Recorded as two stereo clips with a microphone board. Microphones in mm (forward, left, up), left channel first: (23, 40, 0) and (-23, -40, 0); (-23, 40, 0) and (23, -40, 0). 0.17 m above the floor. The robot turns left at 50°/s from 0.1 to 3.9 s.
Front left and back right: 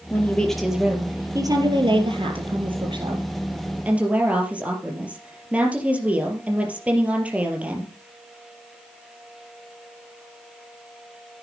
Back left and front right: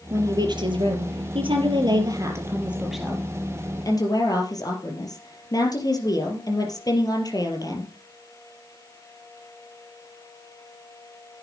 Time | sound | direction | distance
0.1 | a woman speaking | 5° right | 4 m